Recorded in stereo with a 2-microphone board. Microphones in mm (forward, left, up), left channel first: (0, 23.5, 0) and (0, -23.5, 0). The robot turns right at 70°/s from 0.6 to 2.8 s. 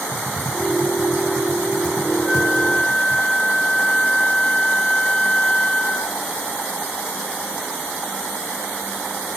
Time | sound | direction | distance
0.1 | typing on a keyboard | 35° right (ahead or behind) | 7 m
2.2 | a flute | 5° right | 3 m